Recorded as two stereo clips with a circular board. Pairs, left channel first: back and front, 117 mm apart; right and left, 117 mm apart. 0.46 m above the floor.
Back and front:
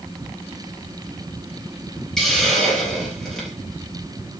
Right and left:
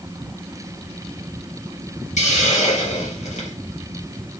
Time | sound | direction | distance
2.2 | a hiss | 95° right | 3.5 m